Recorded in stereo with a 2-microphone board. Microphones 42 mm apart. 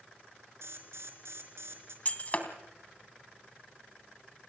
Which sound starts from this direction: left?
Breaking glass, at 2.0 s.